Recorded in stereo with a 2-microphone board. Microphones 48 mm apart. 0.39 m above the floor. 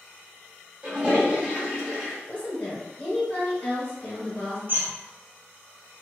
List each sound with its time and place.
0.8 s a toilet flushing: 20° right (ahead or behind), 1.1 m
2.3 s a woman speaking: 40° left (ahead or behind), 1.3 m
4.7 s a bird: 45° right (ahead or behind), 0.6 m